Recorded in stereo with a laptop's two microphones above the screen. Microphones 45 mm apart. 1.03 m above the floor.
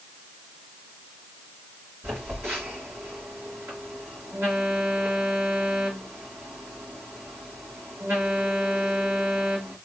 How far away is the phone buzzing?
About 3 m.